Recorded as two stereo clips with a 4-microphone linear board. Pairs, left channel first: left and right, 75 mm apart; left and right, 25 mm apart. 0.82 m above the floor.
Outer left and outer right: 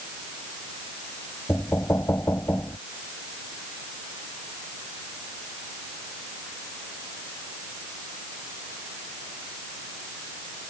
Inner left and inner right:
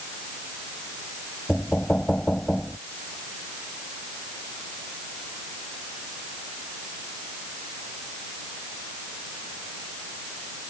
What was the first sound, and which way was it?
Knocking, 35° left (ahead or behind).